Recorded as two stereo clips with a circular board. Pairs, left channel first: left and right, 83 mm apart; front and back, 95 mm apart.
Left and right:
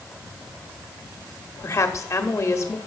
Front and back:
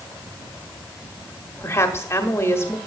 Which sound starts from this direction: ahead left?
A woman speaking, at 1.6 s.